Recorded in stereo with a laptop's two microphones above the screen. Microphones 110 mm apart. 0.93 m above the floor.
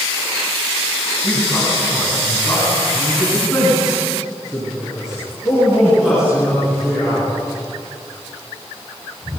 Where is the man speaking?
5° left (ahead or behind), 8 m; by 7.3 s 5° right (ahead or behind), 13.5 m.